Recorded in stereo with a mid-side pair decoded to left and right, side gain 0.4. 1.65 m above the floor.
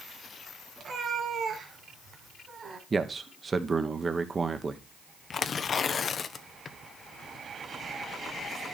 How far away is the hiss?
I don't hear a hiss.